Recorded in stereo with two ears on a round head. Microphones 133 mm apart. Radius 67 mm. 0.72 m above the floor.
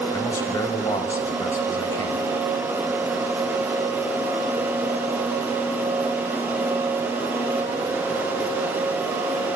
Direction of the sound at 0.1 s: 20° left (ahead or behind).